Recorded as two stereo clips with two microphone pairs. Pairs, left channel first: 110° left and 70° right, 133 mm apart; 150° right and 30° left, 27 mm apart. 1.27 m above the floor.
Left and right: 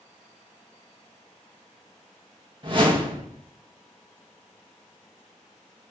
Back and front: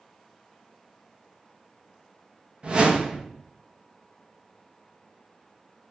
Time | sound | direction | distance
2.6 | a whoosh | 20° right | 1.4 m